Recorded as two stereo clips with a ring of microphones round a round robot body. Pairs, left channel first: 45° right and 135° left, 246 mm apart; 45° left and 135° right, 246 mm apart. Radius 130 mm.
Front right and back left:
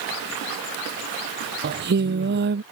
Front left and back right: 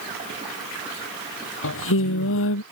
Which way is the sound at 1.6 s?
85° left.